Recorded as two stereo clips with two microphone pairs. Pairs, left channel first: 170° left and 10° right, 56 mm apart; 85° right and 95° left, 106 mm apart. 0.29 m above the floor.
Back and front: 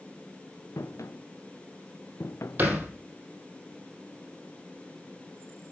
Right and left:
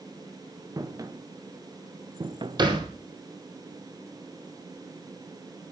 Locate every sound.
0.8 s footsteps: 155° left, 2 m; by 3.6 s 95° left, 0.6 m
2.6 s a thud: 50° left, 3.5 m